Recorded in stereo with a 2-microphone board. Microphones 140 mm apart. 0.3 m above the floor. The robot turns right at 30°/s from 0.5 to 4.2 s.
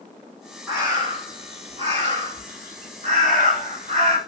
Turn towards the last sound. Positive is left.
turn(degrees=-55)